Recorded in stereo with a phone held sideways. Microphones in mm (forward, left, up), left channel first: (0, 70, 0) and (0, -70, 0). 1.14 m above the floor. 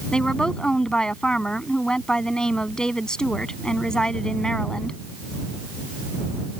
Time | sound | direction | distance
0.1 | a woman speaking | 5° left (ahead or behind) | ?